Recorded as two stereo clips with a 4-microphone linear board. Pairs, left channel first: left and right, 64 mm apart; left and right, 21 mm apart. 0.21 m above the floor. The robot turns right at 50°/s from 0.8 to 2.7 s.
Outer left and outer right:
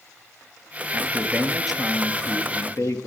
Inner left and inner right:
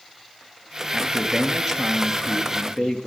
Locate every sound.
0.9 s a man speaking: 40° right, 3 m; by 3.1 s 50° left, 3 m